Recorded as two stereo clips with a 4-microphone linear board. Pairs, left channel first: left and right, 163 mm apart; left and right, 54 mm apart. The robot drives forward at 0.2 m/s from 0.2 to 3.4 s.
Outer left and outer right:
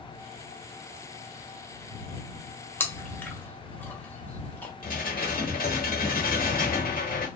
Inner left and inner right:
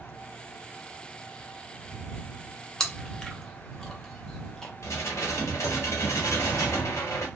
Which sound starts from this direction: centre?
Chewing, at 2.8 s.